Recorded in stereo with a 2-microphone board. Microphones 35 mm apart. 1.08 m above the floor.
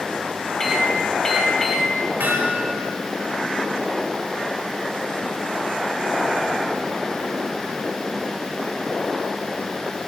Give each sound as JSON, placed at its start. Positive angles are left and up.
{"t": 0.6, "sound": "a microwave", "side_deg": 15, "distance_m": 1.8}
{"t": 2.2, "sound": "hammering", "side_deg": -80, "distance_m": 3.0}